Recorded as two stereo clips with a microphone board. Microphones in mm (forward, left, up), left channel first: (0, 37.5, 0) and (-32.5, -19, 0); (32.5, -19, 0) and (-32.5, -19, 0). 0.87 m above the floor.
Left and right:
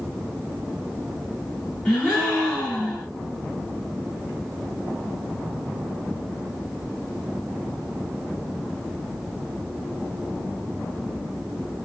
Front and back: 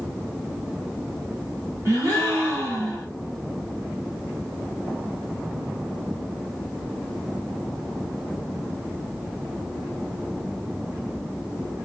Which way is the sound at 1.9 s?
135° left.